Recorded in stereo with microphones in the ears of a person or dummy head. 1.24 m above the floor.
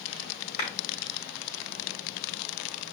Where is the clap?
50° left (ahead or behind), 2.5 m.